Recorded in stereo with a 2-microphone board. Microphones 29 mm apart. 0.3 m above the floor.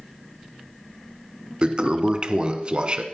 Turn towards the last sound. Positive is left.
turn(degrees=-40)  # may be behind; listen again after turning